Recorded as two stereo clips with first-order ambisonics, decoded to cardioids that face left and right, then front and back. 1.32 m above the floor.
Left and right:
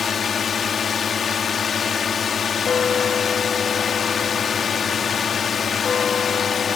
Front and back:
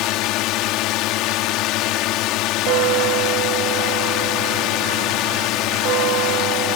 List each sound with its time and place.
0.0 s a drone: 25° left
2.7 s a bell: 155° left